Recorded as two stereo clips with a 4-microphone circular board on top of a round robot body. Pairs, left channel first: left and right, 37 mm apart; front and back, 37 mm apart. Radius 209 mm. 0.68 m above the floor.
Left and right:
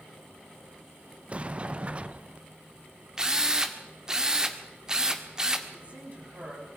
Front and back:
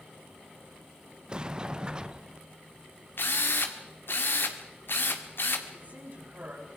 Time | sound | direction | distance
1.3 | a sliding door | 125° right | 0.8 m
3.2 | a drill | 15° right | 2.0 m
5.7 | a woman speaking | 140° right | 6.5 m